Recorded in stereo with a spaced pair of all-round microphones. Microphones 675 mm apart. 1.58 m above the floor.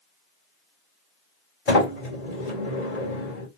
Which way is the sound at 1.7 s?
60° left (ahead or behind).